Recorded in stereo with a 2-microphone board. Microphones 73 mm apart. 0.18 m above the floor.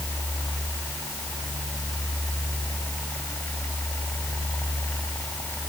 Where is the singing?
I don't hear singing.